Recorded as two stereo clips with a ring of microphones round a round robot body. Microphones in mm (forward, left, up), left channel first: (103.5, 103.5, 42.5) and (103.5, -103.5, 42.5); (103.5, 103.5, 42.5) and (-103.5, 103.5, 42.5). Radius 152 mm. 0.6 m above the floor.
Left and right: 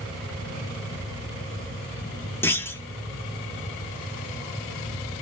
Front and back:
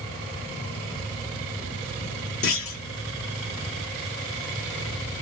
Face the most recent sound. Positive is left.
turn(degrees=10)